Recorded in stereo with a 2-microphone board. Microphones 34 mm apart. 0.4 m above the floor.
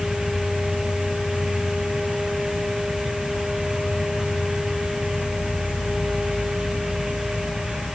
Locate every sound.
0.0 s an insect: 65° left (ahead or behind)